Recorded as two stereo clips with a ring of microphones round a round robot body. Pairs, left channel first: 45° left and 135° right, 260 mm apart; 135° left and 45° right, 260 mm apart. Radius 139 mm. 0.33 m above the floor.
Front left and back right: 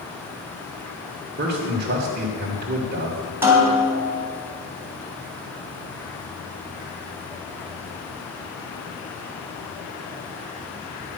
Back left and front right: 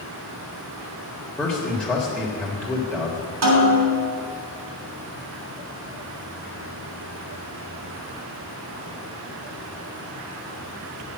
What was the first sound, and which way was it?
A man speaking, 145° right.